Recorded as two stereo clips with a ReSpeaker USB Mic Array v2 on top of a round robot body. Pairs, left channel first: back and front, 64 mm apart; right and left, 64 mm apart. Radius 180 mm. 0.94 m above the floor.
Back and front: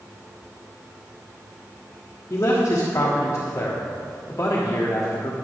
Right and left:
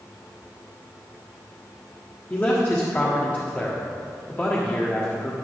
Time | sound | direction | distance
2.3 | a man speaking | 145° right | 1.5 m